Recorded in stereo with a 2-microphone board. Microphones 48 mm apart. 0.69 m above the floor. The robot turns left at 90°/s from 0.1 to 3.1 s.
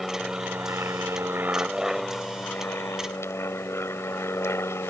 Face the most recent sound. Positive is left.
turn(degrees=80)